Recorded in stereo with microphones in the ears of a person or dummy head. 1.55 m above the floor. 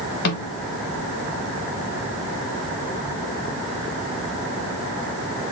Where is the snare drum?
60° left (ahead or behind), 1.6 m.